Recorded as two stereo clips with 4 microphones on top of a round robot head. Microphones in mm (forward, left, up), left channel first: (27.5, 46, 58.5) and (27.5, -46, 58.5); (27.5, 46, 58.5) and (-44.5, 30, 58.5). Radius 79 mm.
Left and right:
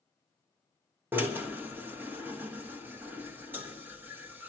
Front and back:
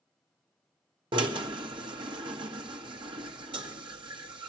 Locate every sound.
1.1 s a drill: 165° right, 1.3 m